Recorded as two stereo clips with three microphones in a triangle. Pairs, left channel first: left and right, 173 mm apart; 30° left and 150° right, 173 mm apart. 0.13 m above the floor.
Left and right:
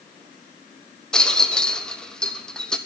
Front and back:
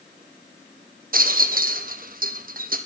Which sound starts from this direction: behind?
A rattle, at 1.1 s.